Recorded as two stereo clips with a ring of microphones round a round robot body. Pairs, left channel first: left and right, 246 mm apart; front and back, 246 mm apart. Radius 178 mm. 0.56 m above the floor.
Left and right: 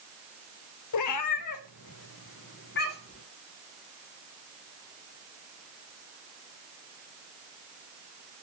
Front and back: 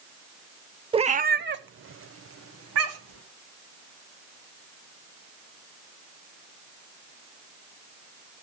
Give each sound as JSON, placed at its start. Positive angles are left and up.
{"t": 0.9, "sound": "a cat meowing", "azimuth_deg": 105, "distance_m": 0.6}